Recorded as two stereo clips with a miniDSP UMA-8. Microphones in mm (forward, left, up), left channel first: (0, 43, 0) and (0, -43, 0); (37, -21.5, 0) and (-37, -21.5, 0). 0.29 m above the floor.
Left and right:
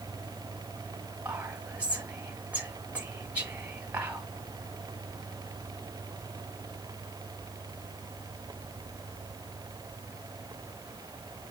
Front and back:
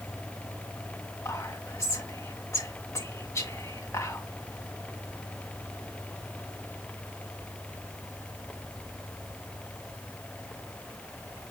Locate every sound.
1.2 s whispering: 25° right, 1.6 m